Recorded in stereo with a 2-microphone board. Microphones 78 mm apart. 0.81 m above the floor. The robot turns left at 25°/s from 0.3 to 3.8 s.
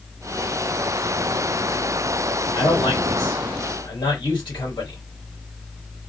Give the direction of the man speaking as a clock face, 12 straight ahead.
8 o'clock.